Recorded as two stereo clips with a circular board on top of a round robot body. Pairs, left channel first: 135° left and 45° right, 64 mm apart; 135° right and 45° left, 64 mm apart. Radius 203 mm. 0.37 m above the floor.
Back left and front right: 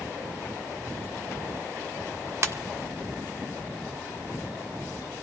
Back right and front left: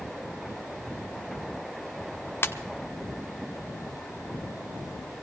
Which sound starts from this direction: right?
A ringtone, at 2.4 s.